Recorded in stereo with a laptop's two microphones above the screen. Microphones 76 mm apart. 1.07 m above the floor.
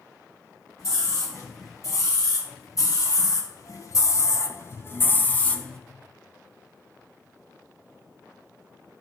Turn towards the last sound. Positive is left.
turn(degrees=10)  # may be behind; listen again after turning